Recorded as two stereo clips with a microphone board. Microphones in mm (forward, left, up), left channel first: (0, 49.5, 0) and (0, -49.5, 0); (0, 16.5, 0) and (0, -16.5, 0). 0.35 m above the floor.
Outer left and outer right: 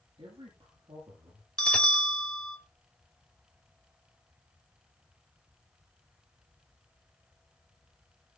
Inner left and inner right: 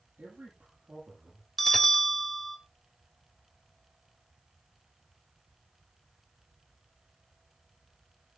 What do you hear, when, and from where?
0.2 s a man speaking: 70° right (ahead or behind), 9 m
1.6 s a bell: 5° left (ahead or behind), 1.7 m